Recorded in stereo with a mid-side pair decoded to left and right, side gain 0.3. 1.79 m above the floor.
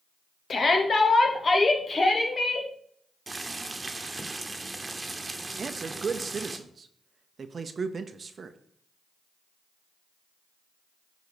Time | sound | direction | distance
0.5 | a shout | 60° left | 1.6 m
3.3 | boiling | 25° right | 1.3 m
5.6 | a man speaking | 55° right | 0.8 m